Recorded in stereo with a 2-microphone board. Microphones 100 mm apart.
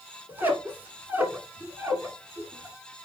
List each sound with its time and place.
0.3 s a squeak: 20° right (ahead or behind), 1.2 m